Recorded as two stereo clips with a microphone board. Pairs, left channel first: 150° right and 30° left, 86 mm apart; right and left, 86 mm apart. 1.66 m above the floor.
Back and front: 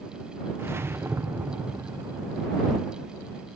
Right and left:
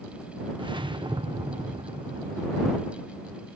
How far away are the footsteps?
I don't hear footsteps.